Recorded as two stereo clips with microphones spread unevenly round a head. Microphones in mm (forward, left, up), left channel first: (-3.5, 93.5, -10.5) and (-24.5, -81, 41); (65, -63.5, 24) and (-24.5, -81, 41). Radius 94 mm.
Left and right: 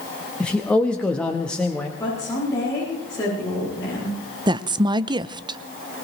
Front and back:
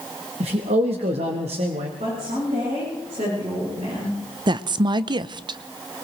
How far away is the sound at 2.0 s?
About 10 m.